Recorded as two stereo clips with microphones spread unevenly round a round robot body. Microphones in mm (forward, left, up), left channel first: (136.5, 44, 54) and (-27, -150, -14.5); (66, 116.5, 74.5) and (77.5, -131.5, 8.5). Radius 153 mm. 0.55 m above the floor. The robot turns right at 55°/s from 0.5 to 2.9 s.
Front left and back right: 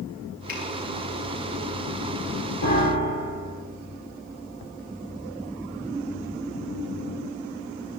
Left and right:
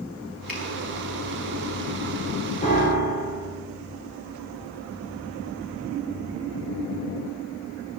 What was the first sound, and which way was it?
A finger snap, straight ahead.